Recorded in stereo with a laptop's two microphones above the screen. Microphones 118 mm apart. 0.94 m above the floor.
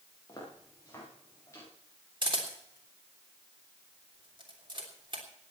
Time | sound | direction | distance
0.3 | footsteps | 30° left (ahead or behind) | 8 m
2.2 | a camera shutter | 45° right (ahead or behind) | 3 m